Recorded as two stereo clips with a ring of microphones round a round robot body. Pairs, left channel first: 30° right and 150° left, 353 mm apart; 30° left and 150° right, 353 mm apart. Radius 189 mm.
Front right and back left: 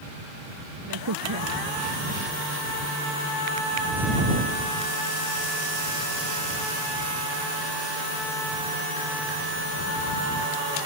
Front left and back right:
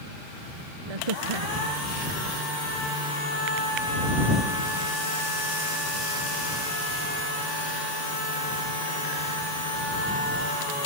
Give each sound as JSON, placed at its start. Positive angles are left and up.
{"t": 0.9, "sound": "a crack", "azimuth_deg": -165}